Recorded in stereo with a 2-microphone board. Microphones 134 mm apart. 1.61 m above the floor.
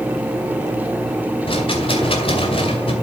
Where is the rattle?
45° left (ahead or behind), 2 m.